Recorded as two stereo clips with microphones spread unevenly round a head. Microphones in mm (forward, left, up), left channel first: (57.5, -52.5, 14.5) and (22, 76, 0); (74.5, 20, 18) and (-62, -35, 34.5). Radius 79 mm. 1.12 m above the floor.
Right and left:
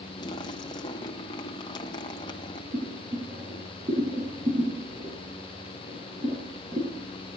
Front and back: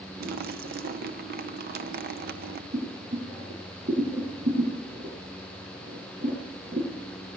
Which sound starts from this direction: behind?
Boiling, at 2.7 s.